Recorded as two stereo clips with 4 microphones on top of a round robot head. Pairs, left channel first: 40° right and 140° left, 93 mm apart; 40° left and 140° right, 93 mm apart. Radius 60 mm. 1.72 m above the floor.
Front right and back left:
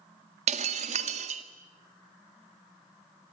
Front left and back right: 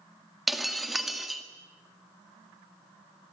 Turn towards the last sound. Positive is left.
turn(degrees=130)